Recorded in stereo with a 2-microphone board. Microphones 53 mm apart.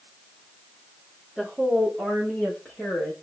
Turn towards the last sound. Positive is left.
turn(degrees=20)  # may be behind; listen again after turning